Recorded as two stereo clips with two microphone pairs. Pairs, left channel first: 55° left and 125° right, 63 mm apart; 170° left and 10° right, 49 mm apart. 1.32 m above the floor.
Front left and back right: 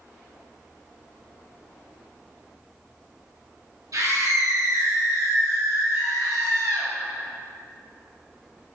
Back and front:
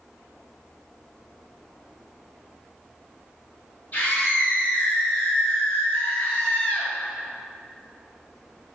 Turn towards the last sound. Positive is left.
turn(degrees=-125)